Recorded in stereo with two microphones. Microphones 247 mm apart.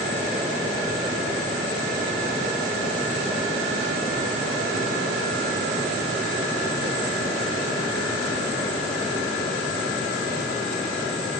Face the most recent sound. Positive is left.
No sound to turn to.